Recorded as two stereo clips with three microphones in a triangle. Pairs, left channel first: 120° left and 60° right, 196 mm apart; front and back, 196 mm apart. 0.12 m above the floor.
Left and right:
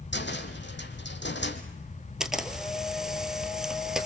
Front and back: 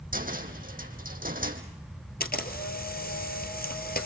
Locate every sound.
0.1 s a cupboard door: 140° left, 2.0 m
2.2 s a camera shutter: 30° left, 2 m